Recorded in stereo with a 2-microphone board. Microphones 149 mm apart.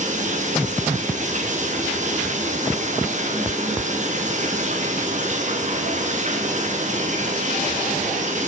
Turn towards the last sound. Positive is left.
turn(degrees=-55)  # may be behind; listen again after turning